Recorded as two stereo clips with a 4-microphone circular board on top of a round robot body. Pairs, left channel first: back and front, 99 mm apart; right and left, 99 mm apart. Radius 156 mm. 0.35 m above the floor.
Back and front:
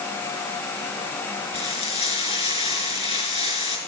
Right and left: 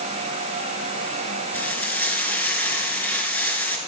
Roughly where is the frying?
Behind.